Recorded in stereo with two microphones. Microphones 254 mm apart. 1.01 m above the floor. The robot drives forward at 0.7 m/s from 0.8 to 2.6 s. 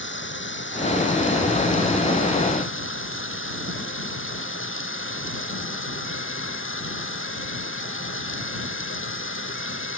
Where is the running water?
50° left (ahead or behind); by 10.0 s 55° left (ahead or behind).